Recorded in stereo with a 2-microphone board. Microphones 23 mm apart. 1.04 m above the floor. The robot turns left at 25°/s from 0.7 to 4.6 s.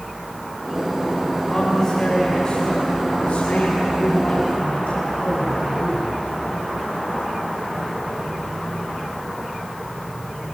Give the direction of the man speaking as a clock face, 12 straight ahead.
7 o'clock.